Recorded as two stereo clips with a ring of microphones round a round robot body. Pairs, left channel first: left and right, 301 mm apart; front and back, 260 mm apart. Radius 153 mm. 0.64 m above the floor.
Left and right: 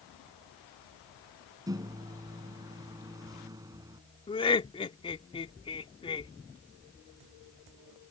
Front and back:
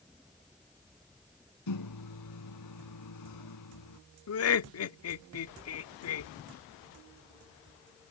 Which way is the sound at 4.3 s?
20° left.